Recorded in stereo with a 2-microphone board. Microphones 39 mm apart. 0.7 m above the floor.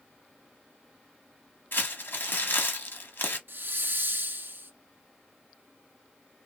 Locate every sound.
1.7 s crumpling: 70° left (ahead or behind), 1.1 m
3.5 s a hiss: 65° right (ahead or behind), 0.6 m